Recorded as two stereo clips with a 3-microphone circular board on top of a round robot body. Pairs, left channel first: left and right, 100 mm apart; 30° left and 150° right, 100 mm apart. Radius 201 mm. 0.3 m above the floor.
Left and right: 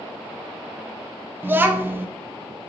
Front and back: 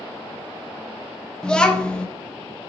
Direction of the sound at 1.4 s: 45° right.